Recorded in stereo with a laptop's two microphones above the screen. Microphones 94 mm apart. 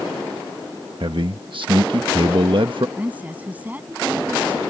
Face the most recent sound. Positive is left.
turn(degrees=-15)  # may be behind; listen again after turning